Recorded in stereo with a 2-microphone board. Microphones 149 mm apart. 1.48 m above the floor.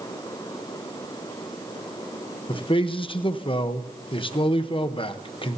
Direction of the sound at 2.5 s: 35° left (ahead or behind).